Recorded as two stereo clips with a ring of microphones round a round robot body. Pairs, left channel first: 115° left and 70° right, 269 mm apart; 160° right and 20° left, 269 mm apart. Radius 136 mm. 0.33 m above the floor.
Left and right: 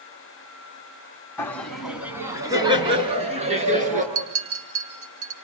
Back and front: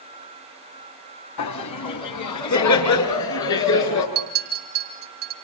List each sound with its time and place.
1.4 s laughter: 165° right, 2.5 m; by 4.0 s 130° right, 5 m
4.2 s a clink: 30° right, 3 m